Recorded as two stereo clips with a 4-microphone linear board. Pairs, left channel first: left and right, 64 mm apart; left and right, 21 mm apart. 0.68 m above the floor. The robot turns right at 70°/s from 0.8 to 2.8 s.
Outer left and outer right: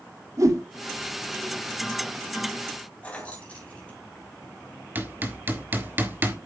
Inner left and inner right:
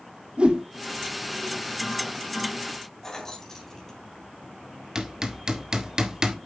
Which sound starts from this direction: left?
Keys jangling, at 3.0 s.